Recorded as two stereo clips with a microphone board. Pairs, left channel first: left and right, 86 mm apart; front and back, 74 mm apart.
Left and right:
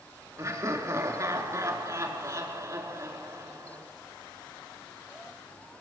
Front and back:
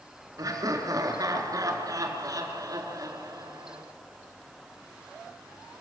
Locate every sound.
0.4 s laughter: 140° right, 4.5 m